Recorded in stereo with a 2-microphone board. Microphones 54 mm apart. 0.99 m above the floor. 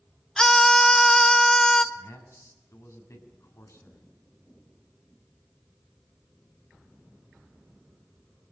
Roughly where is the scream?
Centre.